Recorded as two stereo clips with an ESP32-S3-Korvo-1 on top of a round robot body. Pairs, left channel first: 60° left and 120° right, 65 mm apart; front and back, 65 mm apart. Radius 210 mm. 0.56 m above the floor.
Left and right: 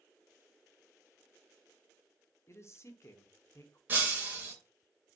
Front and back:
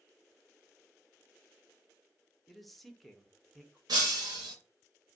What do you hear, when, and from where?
2.5 s a man speaking: 90° left, 1.0 m
3.9 s breaking glass: 175° left, 0.6 m